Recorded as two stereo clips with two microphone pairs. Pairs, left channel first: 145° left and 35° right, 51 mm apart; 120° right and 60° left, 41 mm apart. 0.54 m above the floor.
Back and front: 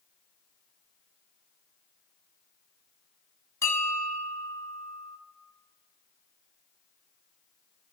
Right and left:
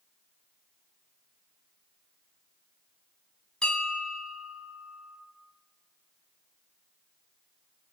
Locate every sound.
3.6 s a bell: 175° left, 2 m